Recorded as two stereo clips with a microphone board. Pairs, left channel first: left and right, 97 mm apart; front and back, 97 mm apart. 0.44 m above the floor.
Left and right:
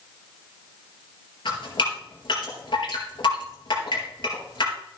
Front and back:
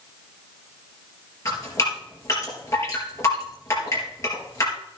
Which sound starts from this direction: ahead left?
Dripping, at 1.4 s.